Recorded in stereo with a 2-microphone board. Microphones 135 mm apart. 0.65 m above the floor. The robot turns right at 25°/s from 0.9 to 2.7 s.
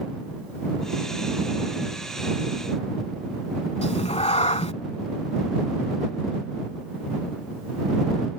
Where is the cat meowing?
50° left (ahead or behind).